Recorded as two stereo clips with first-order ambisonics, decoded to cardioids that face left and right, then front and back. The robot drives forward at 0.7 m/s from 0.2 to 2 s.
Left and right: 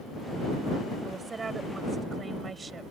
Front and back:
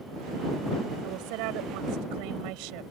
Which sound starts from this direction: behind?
A woman speaking, at 1.0 s.